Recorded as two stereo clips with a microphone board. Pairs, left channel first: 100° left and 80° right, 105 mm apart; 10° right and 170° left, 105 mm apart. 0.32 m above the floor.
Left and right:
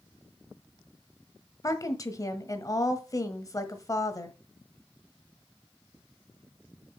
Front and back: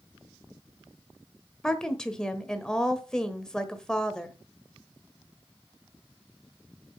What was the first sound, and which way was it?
A woman speaking, 70° left.